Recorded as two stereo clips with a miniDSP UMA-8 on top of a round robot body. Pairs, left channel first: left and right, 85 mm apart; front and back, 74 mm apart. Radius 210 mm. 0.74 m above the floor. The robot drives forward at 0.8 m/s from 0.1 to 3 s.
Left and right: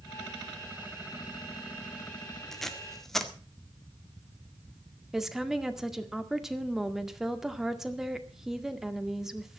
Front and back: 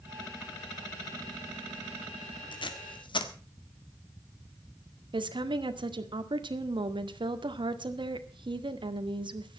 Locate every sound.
2.5 s tape being pulled: 5° left, 2 m
5.1 s a woman speaking: 175° right, 2 m